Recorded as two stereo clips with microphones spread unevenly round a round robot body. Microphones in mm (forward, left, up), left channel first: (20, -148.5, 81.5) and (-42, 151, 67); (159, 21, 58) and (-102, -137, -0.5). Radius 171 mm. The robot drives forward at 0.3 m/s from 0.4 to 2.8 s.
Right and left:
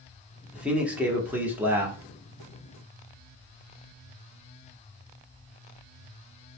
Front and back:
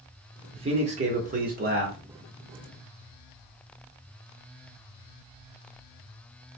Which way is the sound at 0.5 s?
Straight behind.